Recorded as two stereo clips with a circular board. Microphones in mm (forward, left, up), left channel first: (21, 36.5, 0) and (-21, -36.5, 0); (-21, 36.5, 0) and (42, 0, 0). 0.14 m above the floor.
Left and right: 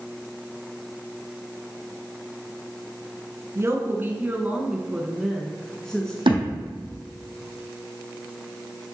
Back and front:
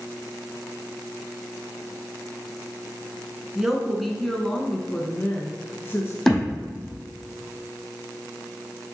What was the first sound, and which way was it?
A woman speaking, 110° right.